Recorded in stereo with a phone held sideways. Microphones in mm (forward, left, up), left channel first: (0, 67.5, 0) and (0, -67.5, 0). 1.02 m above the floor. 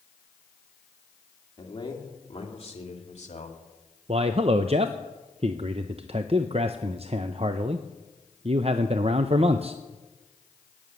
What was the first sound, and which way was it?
A man speaking, 35° left (ahead or behind).